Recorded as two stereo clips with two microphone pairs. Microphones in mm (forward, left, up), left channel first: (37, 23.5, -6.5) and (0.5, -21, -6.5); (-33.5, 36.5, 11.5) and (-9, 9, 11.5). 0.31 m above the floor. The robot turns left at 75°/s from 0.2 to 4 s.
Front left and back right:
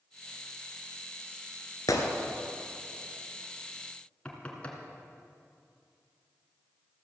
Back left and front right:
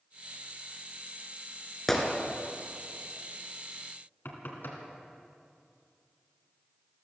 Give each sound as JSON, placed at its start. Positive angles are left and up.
{"t": 1.9, "sound": "a gunshot", "azimuth_deg": 50, "distance_m": 1.9}
{"t": 4.2, "sound": "knocking", "azimuth_deg": 115, "distance_m": 2.5}